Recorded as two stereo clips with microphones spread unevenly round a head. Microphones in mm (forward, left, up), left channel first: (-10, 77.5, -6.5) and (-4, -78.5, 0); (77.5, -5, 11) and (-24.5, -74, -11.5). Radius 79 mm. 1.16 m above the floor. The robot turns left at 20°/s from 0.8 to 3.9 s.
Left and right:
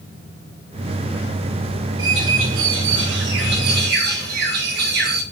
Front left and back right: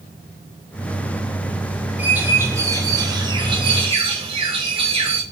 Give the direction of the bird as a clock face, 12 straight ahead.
2 o'clock.